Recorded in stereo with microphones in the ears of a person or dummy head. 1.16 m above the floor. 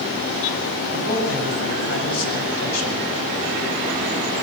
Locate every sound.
0.9 s a man speaking: 80° left, 9 m; by 3.0 s 85° left, 7 m